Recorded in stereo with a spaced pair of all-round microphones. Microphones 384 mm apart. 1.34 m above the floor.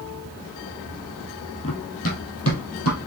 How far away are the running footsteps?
About 1.6 m.